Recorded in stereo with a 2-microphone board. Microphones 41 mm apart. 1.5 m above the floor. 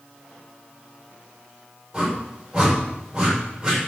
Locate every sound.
1.9 s a whoosh: 20° right (ahead or behind), 6.5 m